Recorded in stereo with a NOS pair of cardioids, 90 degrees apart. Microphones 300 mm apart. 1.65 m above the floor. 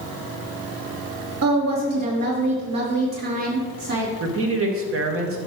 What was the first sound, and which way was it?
A woman speaking, 55° right.